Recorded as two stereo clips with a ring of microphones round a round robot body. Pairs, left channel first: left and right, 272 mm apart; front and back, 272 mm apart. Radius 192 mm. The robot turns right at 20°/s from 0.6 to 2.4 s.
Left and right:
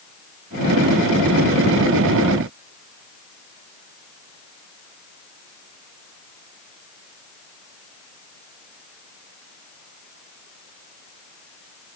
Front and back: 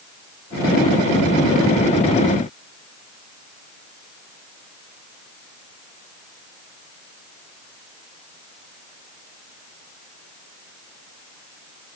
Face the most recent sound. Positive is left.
No sound to turn to.